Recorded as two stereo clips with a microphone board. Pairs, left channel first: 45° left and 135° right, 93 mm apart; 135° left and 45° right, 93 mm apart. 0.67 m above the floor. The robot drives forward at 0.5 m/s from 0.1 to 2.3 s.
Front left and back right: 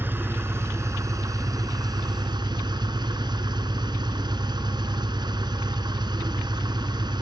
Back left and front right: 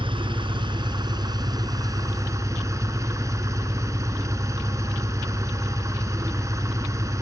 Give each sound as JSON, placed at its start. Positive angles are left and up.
{"t": 0.0, "sound": "an engine running", "azimuth_deg": -70, "distance_m": 2.0}